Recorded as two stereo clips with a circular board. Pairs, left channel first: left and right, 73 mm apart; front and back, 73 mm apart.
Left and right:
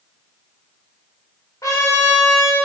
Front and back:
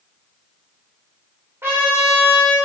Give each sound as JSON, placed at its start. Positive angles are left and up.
{"t": 1.6, "sound": "a trumpet", "azimuth_deg": 125, "distance_m": 3.0}